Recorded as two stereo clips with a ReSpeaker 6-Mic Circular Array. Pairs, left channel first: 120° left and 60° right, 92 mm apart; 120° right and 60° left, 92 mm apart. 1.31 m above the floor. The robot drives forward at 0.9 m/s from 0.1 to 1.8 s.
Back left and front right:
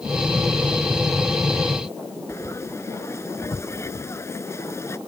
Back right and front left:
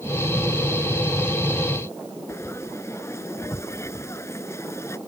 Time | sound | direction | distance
2.3 | frying | straight behind | ?